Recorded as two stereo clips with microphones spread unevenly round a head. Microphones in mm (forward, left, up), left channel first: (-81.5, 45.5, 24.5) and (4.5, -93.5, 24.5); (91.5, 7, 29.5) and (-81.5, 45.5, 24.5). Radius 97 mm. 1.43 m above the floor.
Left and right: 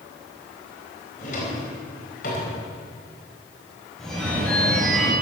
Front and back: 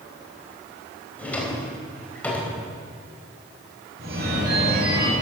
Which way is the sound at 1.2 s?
70° left.